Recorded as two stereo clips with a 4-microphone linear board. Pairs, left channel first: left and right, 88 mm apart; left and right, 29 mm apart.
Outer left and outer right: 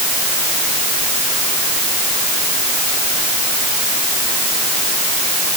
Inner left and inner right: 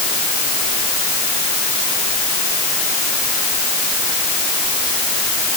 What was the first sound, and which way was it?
Only background noise.